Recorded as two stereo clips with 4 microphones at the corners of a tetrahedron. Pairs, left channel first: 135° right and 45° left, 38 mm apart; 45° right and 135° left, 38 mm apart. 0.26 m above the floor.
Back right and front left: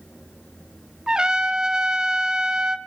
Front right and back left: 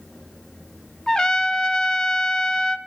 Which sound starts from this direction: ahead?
A trumpet, at 1.1 s.